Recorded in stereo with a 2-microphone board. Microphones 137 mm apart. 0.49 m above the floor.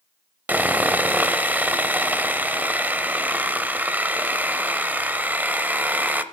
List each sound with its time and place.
0.5 s sawing: 15° right (ahead or behind), 0.6 m